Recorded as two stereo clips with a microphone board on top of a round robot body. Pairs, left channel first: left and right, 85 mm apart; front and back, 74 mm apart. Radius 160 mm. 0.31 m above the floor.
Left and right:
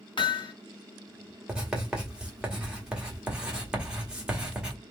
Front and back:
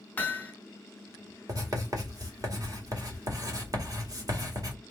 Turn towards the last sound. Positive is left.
turn(degrees=-170)